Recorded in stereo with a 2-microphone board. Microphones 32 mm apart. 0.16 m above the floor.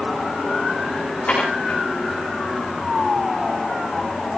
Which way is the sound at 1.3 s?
45° left (ahead or behind).